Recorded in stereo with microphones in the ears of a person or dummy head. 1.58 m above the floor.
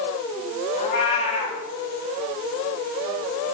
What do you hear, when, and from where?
0.8 s a cat meowing: 45° left (ahead or behind), 2 m